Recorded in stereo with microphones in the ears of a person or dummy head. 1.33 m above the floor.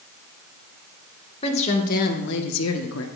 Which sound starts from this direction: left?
A woman speaking, at 1.4 s.